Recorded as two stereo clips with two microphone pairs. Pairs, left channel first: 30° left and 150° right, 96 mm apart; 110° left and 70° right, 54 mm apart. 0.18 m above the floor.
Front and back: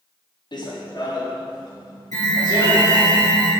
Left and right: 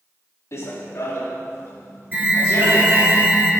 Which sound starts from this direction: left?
Running footsteps, at 0.5 s.